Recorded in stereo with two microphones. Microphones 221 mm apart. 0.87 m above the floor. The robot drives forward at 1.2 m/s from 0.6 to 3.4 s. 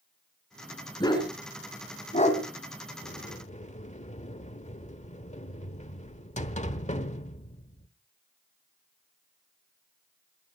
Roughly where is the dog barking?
Centre.